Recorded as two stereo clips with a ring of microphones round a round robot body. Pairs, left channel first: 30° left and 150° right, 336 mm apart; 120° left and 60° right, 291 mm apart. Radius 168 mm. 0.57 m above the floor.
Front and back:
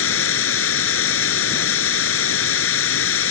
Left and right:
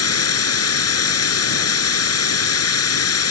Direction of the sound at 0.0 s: 85° left.